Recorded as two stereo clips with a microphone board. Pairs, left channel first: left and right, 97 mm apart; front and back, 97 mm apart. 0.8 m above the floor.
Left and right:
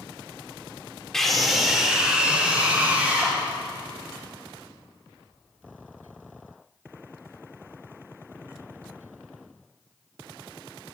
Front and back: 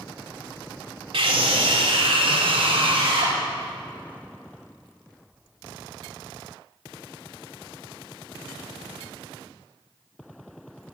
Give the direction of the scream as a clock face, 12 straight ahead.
6 o'clock.